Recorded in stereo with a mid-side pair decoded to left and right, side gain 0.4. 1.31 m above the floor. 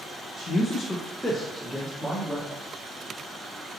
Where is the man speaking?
55° left, 0.6 m; by 2.5 s 10° right, 1.3 m.